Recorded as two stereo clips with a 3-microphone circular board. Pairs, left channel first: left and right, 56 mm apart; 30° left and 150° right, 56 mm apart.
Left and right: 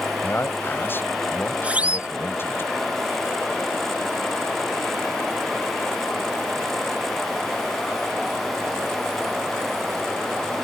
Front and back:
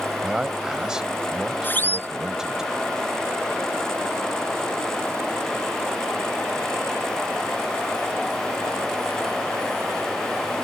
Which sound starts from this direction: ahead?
A siren, at 1.6 s.